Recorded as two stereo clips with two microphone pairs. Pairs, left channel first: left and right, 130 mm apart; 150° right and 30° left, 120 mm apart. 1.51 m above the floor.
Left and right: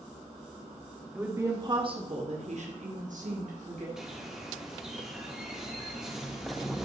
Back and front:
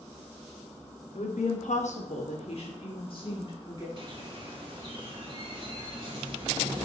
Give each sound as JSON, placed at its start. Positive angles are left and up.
{"t": 1.1, "sound": "a woman speaking", "azimuth_deg": -165, "distance_m": 1.1}
{"t": 4.0, "sound": "a bird", "azimuth_deg": -5, "distance_m": 1.6}